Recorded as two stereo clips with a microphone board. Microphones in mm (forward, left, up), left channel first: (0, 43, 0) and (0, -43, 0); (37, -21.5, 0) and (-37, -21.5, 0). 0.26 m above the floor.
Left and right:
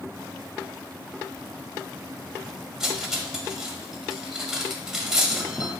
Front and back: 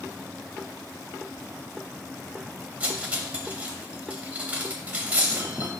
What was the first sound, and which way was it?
Cutlery clinking, 160° right.